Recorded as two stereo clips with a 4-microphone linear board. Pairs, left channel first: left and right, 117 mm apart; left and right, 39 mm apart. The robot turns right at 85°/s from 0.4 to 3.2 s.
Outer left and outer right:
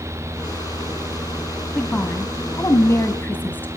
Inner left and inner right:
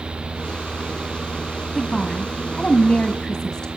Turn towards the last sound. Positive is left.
turn(degrees=15)  # may be behind; listen again after turning